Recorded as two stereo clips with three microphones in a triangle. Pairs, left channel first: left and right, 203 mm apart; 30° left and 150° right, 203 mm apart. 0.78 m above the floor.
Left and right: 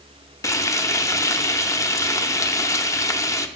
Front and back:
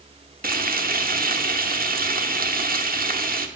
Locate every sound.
0.4 s frying: 165° left, 0.7 m